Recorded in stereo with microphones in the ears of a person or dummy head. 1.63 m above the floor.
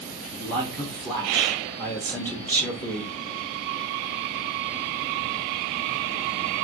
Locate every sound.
0.4 s a man speaking: 10° left (ahead or behind), 0.8 m